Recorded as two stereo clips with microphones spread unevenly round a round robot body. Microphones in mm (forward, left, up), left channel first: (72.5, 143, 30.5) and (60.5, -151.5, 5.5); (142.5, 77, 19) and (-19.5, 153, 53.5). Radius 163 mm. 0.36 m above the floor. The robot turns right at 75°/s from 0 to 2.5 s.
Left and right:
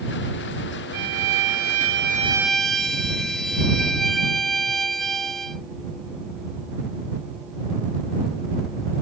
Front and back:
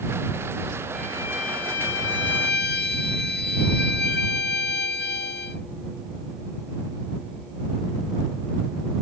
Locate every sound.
0.9 s a violin: 120° right; by 5.6 s straight ahead